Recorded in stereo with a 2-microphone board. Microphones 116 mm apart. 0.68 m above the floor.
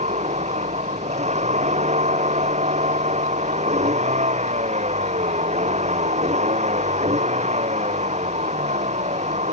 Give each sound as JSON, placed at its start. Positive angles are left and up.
{"t": 0.0, "sound": "a vehicle", "side_deg": -80}